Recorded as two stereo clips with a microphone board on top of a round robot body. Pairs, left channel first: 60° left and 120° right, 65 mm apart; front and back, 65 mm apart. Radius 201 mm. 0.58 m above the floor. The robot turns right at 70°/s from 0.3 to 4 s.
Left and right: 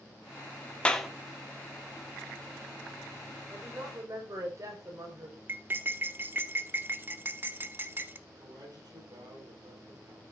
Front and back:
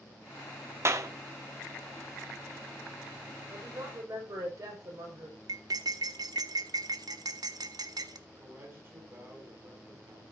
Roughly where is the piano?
I don't hear a piano.